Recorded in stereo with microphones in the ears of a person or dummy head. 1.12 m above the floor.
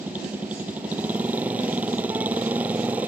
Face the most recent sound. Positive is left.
turn(degrees=-10)  # may be behind; listen again after turning